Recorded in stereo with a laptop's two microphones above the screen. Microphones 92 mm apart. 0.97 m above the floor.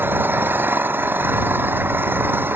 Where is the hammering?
I don't hear hammering.